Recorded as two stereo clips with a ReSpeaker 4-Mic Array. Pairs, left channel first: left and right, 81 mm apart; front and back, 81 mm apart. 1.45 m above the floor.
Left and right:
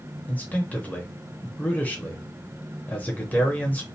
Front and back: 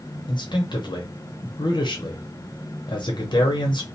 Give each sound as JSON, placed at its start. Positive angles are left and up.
{"t": 0.3, "sound": "a man speaking", "azimuth_deg": 20, "distance_m": 0.8}